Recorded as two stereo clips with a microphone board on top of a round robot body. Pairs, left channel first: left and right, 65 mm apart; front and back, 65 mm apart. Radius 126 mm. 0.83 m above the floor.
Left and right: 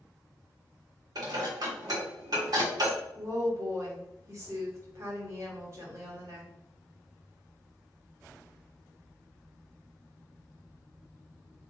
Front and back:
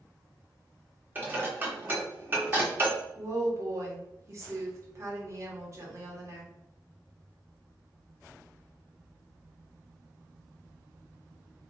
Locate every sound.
1.1 s dishes clattering: 120° right, 1.3 m
3.1 s a woman speaking: 135° right, 1.4 m